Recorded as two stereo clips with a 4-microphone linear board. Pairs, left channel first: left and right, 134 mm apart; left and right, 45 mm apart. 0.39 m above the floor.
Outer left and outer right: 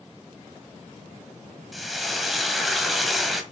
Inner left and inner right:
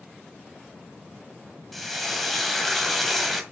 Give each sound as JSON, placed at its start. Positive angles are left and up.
{"t": 1.7, "sound": "frying", "side_deg": 0, "distance_m": 1.7}